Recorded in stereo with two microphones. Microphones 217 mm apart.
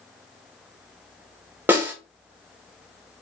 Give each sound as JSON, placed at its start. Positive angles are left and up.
{"t": 1.7, "sound": "a snare drum", "side_deg": -10, "distance_m": 1.3}